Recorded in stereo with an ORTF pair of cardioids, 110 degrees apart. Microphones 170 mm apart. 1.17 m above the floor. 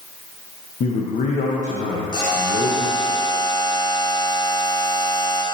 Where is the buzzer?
25° left, 1.8 m.